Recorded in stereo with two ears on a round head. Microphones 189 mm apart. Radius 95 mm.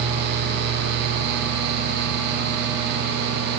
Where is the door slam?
I don't hear a door slam.